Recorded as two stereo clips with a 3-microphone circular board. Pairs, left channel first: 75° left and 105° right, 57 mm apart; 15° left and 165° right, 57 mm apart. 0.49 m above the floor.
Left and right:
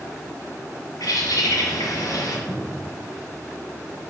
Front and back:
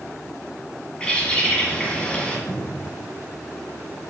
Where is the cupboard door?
Straight ahead, 2.5 m.